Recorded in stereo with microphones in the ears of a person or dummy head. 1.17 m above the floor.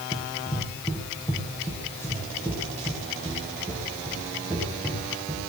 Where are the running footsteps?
30° left (ahead or behind), 2 m; by 5.4 s 5° left (ahead or behind), 7 m.